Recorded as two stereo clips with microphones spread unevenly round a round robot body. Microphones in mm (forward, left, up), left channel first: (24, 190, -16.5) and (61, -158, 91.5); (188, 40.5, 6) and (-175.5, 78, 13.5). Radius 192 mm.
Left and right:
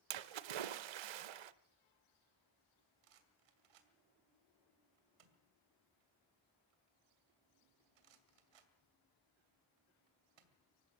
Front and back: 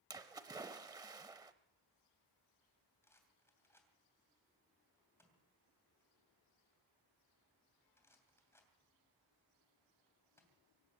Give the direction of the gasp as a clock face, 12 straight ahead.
I don't hear a gasp.